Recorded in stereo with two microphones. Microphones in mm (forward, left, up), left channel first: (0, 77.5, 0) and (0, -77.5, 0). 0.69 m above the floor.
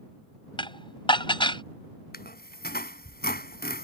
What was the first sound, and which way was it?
Dishes clattering, 30° left (ahead or behind).